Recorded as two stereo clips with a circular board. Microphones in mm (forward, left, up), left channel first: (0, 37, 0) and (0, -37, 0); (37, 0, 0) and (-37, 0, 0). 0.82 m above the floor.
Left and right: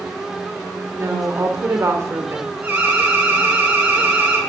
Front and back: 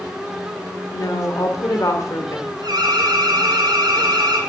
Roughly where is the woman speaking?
Ahead right.